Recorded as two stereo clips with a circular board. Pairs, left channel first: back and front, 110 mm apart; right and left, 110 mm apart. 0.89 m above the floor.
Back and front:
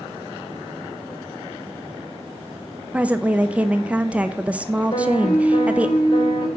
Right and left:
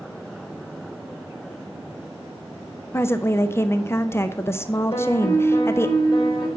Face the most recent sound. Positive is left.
turn(degrees=-135)